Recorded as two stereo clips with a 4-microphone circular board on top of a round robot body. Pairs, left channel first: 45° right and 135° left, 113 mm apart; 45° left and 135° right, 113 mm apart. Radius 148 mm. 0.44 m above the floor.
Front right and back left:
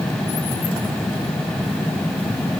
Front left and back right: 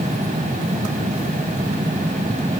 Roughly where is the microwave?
No microwave in this recording.